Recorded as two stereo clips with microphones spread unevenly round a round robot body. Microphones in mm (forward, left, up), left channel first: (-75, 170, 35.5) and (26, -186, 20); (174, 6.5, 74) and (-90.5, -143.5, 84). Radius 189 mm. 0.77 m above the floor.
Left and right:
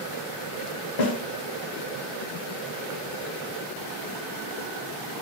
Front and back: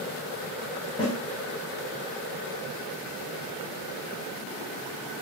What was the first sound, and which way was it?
A snare drum, 105° left.